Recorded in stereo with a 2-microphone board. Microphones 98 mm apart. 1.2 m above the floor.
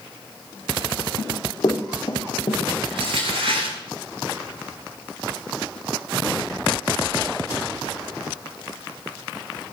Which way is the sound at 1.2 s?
40° left (ahead or behind).